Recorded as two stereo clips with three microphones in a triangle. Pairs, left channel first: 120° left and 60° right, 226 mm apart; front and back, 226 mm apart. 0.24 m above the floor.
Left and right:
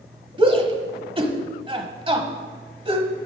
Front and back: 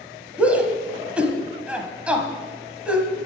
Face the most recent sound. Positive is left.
turn(degrees=-100)